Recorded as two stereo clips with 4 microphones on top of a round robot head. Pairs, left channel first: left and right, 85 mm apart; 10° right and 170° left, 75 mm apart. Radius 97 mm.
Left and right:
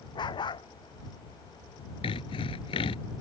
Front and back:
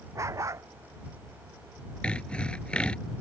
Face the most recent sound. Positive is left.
turn(degrees=70)